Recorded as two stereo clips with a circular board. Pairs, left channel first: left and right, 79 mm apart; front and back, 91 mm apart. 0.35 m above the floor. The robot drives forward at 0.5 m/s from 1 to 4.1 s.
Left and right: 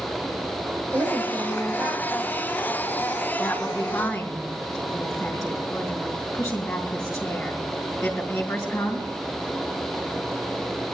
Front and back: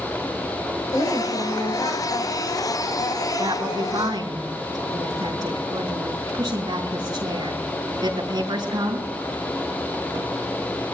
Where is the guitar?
No guitar in this recording.